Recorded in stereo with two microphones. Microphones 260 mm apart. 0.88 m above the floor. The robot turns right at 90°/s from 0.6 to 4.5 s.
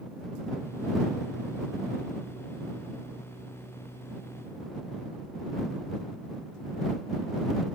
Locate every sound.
Only background noise.